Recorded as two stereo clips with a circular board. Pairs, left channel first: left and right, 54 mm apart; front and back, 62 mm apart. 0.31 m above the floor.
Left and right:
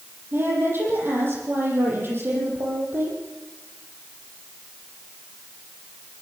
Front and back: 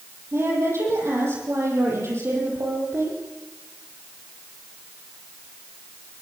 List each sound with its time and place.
0.3 s a woman speaking: 135° right, 9 m